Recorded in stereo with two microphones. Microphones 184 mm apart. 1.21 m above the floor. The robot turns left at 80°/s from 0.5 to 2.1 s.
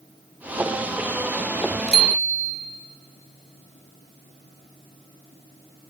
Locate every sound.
1.9 s a bicycle bell: 75° right (ahead or behind), 2 m; by 2.5 s 60° right (ahead or behind), 2 m